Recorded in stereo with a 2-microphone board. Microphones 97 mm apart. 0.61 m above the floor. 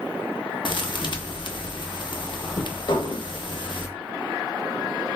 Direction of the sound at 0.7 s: 55° left (ahead or behind).